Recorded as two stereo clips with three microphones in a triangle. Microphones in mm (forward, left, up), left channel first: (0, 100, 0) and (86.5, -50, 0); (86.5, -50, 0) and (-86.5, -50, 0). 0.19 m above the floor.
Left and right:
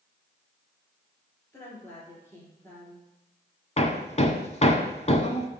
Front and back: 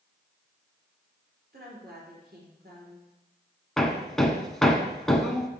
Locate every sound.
1.5 s a woman speaking: 165° right, 3 m
3.8 s hammering: 85° left, 0.7 m